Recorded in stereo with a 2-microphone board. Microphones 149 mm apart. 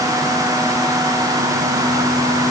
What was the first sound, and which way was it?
Only background noise.